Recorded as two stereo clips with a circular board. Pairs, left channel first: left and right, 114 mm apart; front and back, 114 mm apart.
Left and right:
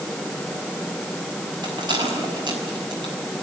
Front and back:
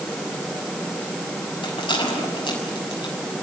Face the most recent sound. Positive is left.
turn(degrees=-45)